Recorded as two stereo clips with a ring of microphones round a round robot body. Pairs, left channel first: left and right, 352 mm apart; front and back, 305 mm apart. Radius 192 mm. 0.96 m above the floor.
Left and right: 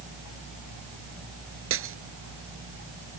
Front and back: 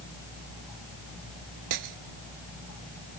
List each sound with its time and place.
1.7 s breaking glass: 145° right